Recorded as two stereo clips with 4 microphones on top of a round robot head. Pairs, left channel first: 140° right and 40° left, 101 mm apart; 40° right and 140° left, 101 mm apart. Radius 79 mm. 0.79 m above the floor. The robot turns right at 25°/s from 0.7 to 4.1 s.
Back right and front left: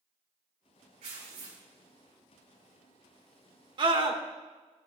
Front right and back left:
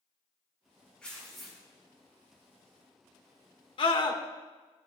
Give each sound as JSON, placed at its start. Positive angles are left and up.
{"t": 1.0, "sound": "tearing paper", "azimuth_deg": 40, "distance_m": 5.5}
{"t": 3.8, "sound": "a scream", "azimuth_deg": -5, "distance_m": 2.0}